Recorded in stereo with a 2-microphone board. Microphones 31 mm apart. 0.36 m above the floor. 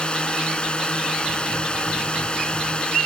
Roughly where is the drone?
Left.